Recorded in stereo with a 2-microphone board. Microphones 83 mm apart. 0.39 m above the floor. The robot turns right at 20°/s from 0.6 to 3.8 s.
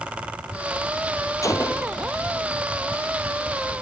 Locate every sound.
1.4 s a gunshot: 40° left (ahead or behind); by 2.0 s 50° left (ahead or behind)